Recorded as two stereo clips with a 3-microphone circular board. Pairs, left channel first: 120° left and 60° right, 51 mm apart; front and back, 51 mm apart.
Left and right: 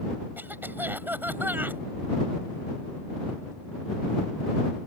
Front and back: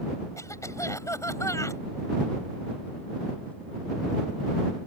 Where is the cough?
10° right.